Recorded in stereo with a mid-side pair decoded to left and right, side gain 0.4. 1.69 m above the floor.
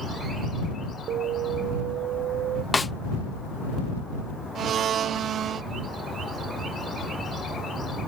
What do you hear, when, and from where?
1.1 s an alarm: 70° right
2.7 s a snare drum: 25° left
4.5 s a blender: 70° right